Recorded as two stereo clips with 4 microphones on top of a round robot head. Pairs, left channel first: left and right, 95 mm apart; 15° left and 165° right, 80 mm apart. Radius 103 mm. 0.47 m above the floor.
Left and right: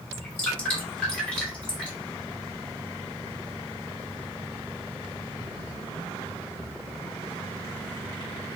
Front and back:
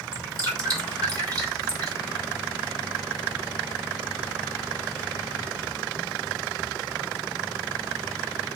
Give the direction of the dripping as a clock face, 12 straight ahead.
6 o'clock.